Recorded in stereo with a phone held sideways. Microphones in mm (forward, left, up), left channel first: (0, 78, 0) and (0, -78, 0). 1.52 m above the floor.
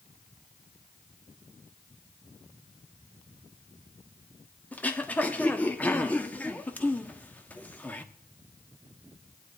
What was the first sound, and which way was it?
Throat clearing, 10° left (ahead or behind).